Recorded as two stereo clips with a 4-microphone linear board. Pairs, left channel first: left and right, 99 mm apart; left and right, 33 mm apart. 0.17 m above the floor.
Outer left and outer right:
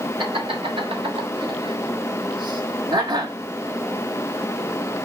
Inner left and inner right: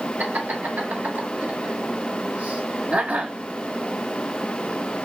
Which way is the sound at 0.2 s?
65° right (ahead or behind).